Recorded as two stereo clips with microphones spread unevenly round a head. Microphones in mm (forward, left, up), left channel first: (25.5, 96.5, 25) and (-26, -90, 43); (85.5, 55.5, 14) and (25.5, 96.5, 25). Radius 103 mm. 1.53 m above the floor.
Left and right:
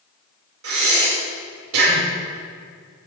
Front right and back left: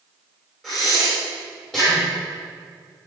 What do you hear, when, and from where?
0.6 s breathing: 125° right, 6 m